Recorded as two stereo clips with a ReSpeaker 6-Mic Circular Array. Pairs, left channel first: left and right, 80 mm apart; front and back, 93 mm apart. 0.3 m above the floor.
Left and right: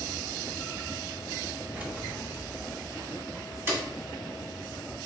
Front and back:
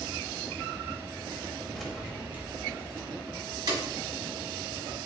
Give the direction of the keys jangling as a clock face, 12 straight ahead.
3 o'clock.